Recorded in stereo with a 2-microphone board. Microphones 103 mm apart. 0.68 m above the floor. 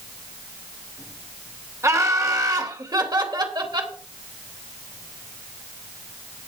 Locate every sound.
1.8 s laughter: 30° right (ahead or behind), 2.5 m; by 3.9 s 45° right (ahead or behind), 3.5 m